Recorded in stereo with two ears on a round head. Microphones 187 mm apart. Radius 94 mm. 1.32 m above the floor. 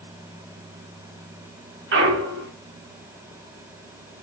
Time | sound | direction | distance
1.9 | a clunk | 55° right (ahead or behind) | 1.1 m